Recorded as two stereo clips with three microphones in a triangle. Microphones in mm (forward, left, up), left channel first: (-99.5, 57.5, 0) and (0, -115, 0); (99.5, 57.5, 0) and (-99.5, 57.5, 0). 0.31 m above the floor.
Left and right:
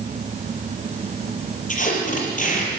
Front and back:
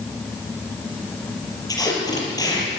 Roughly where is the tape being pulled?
Left.